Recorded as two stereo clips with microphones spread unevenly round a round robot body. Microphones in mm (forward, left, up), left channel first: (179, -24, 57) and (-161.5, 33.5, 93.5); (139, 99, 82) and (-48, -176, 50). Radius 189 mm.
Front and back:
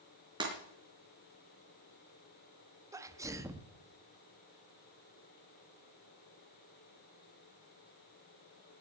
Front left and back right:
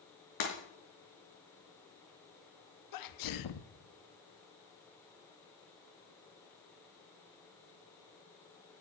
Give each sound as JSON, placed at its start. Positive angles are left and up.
{"t": 0.4, "sound": "breaking glass", "azimuth_deg": 95, "distance_m": 3.5}
{"t": 2.9, "sound": "a sneeze", "azimuth_deg": 85, "distance_m": 1.1}